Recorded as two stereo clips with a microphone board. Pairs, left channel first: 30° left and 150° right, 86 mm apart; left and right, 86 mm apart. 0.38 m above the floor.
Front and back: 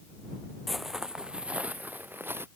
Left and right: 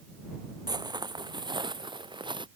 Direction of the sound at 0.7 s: 60° right.